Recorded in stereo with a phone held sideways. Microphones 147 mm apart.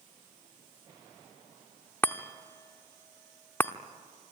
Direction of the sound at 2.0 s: 15° left (ahead or behind).